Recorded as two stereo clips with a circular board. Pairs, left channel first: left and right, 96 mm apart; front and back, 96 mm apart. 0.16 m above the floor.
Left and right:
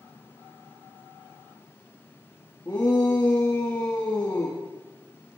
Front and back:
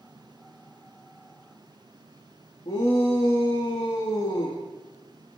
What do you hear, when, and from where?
2.6 s a shout: 25° left, 5 m